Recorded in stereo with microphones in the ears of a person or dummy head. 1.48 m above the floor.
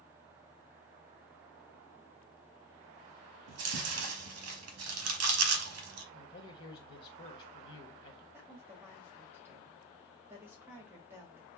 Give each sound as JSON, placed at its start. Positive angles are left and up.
{"t": 3.5, "sound": "chewing", "side_deg": -70, "distance_m": 0.9}
{"t": 6.1, "sound": "a man speaking", "side_deg": 25, "distance_m": 1.1}
{"t": 8.3, "sound": "a woman speaking", "side_deg": -5, "distance_m": 1.0}